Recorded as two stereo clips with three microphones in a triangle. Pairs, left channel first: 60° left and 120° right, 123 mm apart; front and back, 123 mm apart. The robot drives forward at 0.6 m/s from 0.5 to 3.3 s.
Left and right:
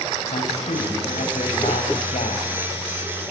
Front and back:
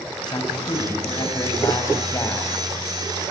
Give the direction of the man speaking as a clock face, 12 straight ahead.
10 o'clock.